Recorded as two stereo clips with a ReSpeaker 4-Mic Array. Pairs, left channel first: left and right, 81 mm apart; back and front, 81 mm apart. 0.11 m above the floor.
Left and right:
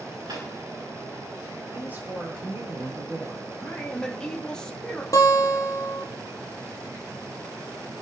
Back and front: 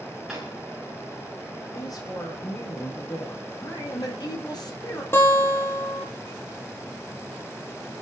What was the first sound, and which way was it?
A drawer, 85° right.